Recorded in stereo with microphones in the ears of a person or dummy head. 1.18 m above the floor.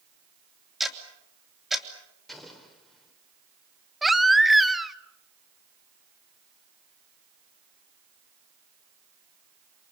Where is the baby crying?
Centre (ahead or behind), 0.8 m.